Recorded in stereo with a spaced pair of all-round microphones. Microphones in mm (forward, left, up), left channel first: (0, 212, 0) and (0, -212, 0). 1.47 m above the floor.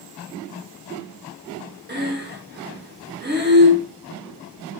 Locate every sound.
1.9 s breathing: 25° right (ahead or behind), 0.7 m